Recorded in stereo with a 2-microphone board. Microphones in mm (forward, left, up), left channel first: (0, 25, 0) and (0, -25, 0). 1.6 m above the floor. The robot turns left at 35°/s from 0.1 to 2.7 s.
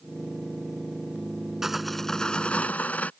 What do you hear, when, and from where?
1.6 s sawing: 175° right; by 3.1 s 145° left